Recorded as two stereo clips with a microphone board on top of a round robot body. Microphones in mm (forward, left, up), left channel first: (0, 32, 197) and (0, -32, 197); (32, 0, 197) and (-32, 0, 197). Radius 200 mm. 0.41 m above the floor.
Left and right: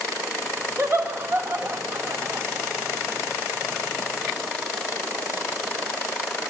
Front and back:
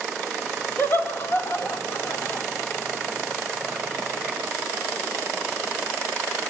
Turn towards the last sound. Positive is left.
turn(degrees=-45)